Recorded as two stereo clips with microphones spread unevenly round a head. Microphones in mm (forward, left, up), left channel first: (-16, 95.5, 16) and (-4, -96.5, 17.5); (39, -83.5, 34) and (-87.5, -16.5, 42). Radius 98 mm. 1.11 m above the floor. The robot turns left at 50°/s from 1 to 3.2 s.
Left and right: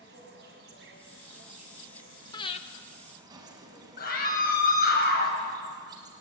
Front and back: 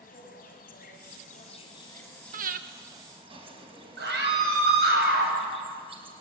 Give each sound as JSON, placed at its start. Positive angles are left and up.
{"t": 0.0, "sound": "an insect", "azimuth_deg": -45, "distance_m": 5.0}
{"t": 2.3, "sound": "breathing", "azimuth_deg": 160, "distance_m": 1.3}
{"t": 4.0, "sound": "a scream", "azimuth_deg": 140, "distance_m": 8.0}